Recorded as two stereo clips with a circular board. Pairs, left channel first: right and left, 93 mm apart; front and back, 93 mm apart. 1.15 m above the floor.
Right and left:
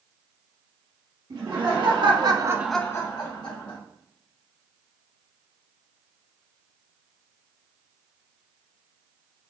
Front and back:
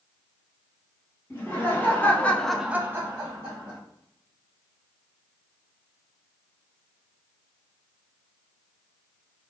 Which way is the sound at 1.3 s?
65° left.